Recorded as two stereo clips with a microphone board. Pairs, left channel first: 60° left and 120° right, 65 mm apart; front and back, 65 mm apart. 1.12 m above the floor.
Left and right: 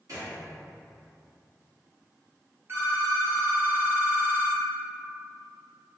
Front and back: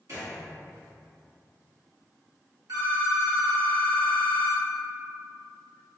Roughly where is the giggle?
I don't hear a giggle.